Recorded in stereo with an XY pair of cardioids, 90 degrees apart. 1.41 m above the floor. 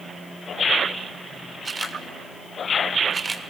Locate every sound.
1.6 s a camera shutter: 30° right, 2 m